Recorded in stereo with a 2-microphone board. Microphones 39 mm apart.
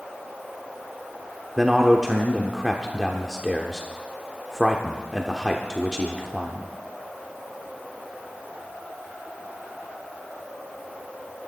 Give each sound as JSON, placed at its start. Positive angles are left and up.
{"t": 1.6, "sound": "a man speaking", "side_deg": 0, "distance_m": 1.1}